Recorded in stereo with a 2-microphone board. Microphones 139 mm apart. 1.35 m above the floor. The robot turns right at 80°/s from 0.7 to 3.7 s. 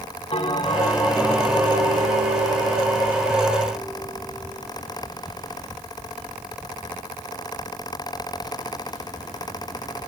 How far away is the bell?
About 0.9 m.